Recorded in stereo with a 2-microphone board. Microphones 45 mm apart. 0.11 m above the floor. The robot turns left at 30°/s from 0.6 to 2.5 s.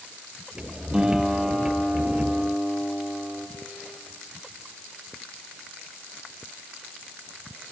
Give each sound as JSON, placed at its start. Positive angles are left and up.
{"t": 0.9, "sound": "a guitar", "azimuth_deg": -160, "distance_m": 3.0}